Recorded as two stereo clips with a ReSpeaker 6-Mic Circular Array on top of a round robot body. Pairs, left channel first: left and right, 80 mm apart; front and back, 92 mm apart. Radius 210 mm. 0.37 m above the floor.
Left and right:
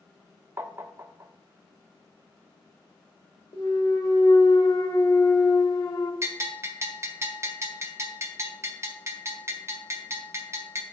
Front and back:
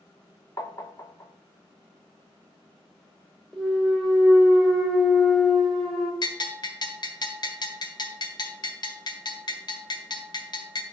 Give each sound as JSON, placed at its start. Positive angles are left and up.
{"t": 0.6, "sound": "tapping", "azimuth_deg": -45, "distance_m": 1.0}
{"t": 3.5, "sound": "a clunk", "azimuth_deg": 85, "distance_m": 1.9}
{"t": 6.2, "sound": "a bell", "azimuth_deg": -35, "distance_m": 1.6}